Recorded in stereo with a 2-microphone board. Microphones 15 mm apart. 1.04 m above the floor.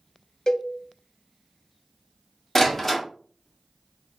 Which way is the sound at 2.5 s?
15° left (ahead or behind).